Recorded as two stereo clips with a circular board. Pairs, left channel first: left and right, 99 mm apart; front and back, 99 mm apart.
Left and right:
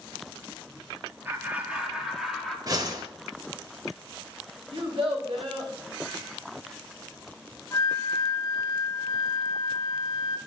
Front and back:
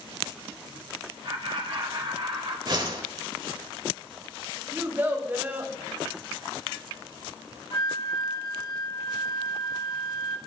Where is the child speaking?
105° right, 2.5 m.